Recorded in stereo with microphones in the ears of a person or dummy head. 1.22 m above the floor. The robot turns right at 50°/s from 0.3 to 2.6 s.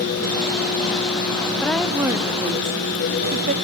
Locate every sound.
1.6 s a woman speaking: 170° left, 1.7 m; by 3.5 s 140° right, 1.7 m